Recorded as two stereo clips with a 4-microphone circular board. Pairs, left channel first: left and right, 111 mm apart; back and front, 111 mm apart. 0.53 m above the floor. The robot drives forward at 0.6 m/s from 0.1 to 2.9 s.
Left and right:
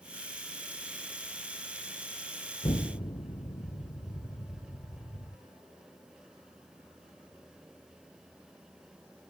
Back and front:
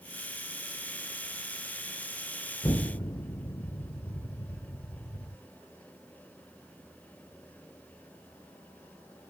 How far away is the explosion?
About 1.5 m.